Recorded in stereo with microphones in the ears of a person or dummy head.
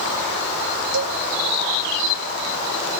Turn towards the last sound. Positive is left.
turn(degrees=-65)  # may be behind; listen again after turning